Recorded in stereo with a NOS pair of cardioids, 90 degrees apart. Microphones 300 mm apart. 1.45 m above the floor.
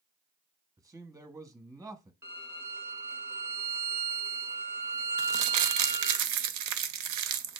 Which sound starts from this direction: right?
Crumpling, at 5.2 s.